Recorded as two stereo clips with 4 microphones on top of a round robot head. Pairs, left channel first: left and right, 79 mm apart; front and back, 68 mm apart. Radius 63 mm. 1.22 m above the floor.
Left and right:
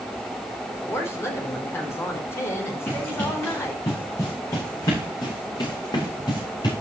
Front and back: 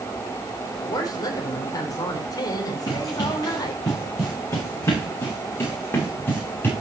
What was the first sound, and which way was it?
A woman speaking, 35° left.